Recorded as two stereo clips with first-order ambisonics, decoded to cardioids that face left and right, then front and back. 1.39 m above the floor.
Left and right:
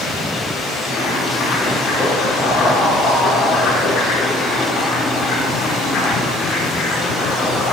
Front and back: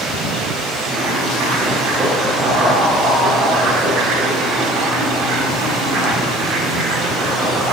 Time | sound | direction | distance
0.8 | boiling | 150° left | 5 m